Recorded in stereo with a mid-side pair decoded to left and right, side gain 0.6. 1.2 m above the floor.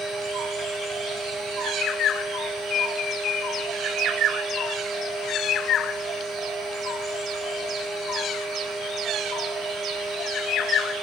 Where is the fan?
40° right, 1.3 m.